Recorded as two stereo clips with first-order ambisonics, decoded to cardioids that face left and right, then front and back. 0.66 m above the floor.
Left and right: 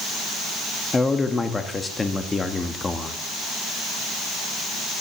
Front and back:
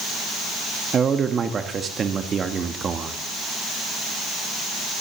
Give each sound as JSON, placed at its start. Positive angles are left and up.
{"t": 0.9, "sound": "a man speaking", "azimuth_deg": 150, "distance_m": 0.9}